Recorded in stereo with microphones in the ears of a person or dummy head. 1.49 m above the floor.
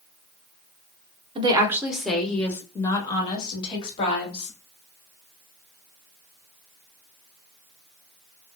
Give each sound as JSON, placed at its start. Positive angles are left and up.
{"t": 1.4, "sound": "a woman speaking", "side_deg": -30, "distance_m": 0.7}